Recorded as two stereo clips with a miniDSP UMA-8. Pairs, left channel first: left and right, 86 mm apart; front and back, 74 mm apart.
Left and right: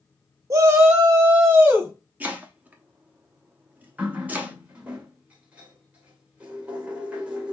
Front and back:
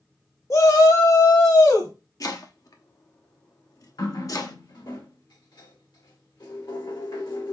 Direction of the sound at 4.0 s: 15° right.